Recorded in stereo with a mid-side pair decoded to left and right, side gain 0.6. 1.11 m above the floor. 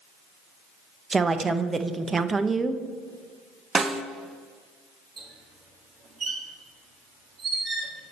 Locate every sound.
1.1 s a woman speaking: 20° right, 0.6 m
3.8 s a snare drum: 30° right, 0.6 m
5.2 s a squeak: 35° right, 1.6 m